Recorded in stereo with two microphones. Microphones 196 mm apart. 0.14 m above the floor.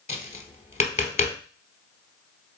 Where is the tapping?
40° left (ahead or behind), 1.0 m.